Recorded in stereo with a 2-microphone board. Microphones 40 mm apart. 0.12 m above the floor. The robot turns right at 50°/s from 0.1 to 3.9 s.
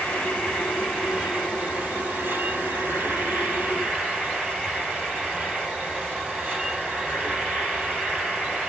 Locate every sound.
0.0 s an insect: 145° left, 3.5 m; by 8.7 s 25° right, 3.5 m